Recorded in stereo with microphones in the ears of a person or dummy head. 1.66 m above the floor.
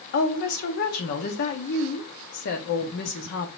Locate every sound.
0.1 s a woman speaking: 55° left (ahead or behind), 0.9 m